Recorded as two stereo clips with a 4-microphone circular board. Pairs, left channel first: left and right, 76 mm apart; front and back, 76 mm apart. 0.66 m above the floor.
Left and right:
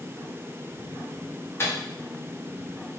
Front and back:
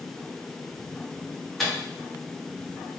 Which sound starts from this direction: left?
A microwave, at 1.6 s.